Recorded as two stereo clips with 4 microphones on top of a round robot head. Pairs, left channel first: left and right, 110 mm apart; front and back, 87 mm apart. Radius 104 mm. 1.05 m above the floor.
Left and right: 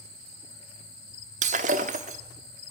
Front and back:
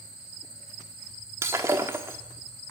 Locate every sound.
1.4 s breaking glass: 110° right, 1.0 m